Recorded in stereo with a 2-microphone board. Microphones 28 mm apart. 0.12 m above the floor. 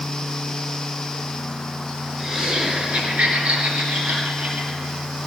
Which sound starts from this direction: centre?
Laughter, at 2.2 s.